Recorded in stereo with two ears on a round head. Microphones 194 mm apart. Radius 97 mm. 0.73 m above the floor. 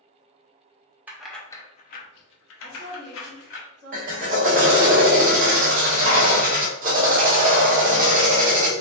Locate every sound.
1.1 s keys jangling: 10° right (ahead or behind), 0.6 m; by 3.6 s 60° left (ahead or behind), 1.2 m
2.6 s a woman speaking: 50° right (ahead or behind), 1.5 m
3.9 s a drill: 40° right (ahead or behind), 0.8 m